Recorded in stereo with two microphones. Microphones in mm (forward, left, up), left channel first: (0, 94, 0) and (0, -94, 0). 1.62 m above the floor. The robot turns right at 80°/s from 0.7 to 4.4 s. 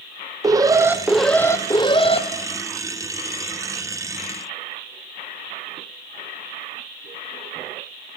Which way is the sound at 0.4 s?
40° right.